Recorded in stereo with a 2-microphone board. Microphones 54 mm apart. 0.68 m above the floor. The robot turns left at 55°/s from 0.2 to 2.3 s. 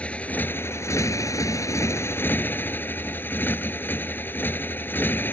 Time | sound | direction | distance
0.0 | a motorcycle | 155° left | ?